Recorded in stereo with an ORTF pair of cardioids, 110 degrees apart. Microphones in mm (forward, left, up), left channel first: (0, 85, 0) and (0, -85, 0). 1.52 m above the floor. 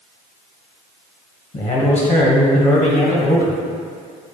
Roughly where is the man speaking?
Ahead left.